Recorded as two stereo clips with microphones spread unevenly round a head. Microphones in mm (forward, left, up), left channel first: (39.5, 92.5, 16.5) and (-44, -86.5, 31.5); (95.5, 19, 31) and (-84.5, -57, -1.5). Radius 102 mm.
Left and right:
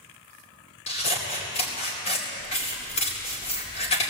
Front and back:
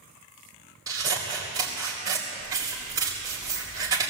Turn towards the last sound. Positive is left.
turn(degrees=125)